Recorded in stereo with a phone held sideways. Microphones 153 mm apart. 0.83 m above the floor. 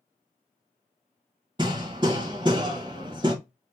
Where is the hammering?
30° right (ahead or behind), 1.4 m.